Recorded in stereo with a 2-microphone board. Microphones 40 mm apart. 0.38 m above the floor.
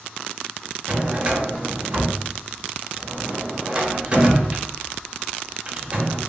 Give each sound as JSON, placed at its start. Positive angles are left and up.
{"t": 0.9, "sound": "a drawer", "side_deg": -25, "distance_m": 0.7}